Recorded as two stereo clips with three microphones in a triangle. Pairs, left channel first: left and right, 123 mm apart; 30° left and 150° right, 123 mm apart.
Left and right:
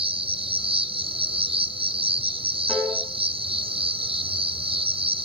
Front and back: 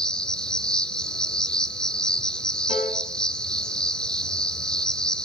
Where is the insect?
55° right, 0.8 m.